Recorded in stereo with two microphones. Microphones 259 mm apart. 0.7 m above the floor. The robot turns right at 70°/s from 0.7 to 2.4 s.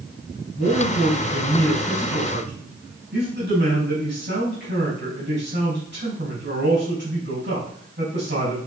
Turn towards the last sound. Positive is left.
turn(degrees=-135)